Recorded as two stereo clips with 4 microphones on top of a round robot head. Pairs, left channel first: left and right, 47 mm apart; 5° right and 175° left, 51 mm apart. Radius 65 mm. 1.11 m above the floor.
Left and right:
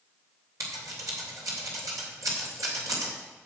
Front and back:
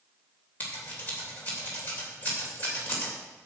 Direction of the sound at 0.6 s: 70° right.